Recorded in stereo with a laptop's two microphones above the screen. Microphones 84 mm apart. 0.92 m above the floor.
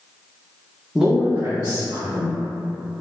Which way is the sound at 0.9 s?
5° right (ahead or behind).